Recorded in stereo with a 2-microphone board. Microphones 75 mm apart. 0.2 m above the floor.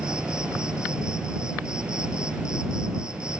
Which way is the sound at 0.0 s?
10° right (ahead or behind).